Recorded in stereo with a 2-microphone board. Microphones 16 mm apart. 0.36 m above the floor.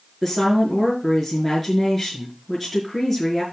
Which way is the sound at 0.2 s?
Centre (ahead or behind).